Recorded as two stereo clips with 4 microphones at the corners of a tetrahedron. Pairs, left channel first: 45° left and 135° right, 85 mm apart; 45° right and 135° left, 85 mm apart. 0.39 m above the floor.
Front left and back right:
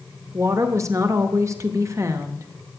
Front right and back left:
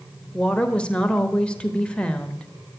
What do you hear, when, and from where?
0.3 s a woman speaking: 115° right, 1.0 m